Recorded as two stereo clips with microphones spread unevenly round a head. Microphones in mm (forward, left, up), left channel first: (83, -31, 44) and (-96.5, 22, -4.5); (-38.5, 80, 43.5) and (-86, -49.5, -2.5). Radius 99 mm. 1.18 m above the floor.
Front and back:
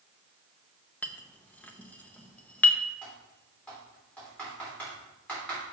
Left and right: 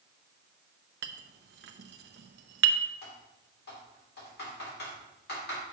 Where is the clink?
90° right, 0.6 m.